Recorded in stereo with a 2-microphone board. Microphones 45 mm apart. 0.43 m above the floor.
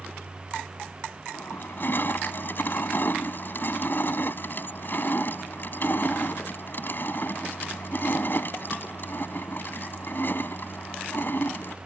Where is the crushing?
50° left (ahead or behind).